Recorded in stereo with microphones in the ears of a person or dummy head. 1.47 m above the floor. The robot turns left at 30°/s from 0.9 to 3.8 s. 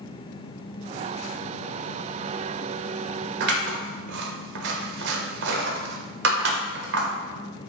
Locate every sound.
3.4 s scissors: 60° right (ahead or behind), 0.7 m; by 7.1 s 65° right (ahead or behind), 0.7 m